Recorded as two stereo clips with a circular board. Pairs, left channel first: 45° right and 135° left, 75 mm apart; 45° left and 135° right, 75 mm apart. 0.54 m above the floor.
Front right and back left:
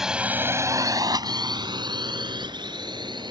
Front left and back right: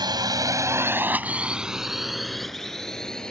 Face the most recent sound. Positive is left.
turn(degrees=125)